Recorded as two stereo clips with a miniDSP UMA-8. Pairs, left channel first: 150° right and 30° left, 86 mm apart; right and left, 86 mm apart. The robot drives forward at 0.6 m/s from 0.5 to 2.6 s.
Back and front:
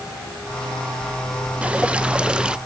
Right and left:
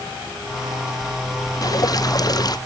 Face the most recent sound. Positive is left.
turn(degrees=-50)